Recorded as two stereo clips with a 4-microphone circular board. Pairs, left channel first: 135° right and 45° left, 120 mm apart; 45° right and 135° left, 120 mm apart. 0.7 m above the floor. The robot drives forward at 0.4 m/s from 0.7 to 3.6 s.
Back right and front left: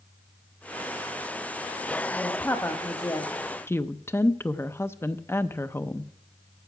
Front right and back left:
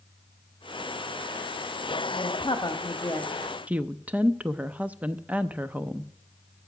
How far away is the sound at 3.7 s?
About 0.5 m.